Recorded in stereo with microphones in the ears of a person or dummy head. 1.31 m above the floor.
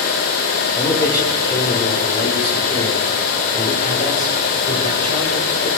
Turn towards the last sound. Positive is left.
turn(degrees=55)  # may be behind; listen again after turning